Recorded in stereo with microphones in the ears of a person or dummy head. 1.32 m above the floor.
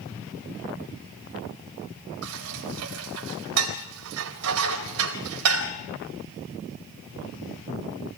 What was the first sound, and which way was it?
Dishes clattering, 85° right.